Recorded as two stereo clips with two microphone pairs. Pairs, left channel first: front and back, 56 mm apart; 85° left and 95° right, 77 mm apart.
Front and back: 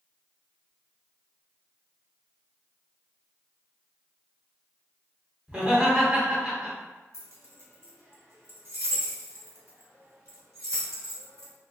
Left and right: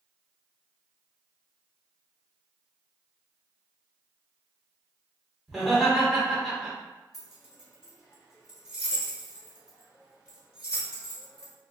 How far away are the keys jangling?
About 1.1 m.